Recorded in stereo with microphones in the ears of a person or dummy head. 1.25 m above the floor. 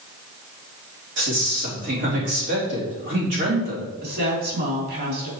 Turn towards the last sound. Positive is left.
turn(degrees=-55)  # may be behind; listen again after turning